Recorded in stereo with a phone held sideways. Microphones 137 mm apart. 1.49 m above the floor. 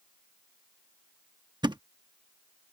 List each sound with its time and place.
1.6 s a thud: 35° right (ahead or behind)